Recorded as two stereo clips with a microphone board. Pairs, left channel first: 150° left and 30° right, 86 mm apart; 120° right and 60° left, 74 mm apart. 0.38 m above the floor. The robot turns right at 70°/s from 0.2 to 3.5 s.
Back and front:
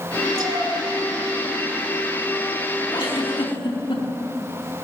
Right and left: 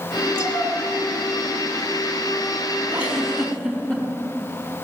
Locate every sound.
0.3 s a cat meowing: 70° right, 3 m; by 0.7 s 45° right, 3 m
2.9 s a giggle: 120° left, 4 m; by 4.0 s 160° left, 4 m